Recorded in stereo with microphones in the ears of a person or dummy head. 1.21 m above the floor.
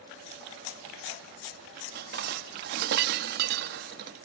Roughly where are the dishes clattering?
Right.